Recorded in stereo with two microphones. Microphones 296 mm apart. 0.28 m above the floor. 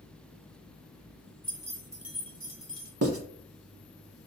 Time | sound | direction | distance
1.4 | keys jangling | 30° right (ahead or behind) | 1.0 m
3.0 | writing | 50° right (ahead or behind) | 0.9 m